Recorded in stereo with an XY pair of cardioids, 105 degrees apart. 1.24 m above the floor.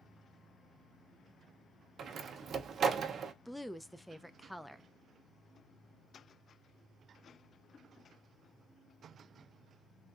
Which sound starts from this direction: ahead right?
A door slam, at 2.0 s.